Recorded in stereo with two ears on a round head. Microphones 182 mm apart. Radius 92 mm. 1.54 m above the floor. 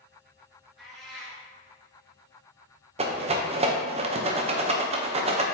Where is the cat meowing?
Centre (ahead or behind), 1.8 m.